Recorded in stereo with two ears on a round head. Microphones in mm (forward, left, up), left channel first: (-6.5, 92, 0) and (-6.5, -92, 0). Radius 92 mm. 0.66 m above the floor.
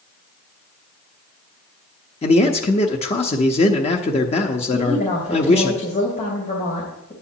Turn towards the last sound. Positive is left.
turn(degrees=35)  # may be behind; listen again after turning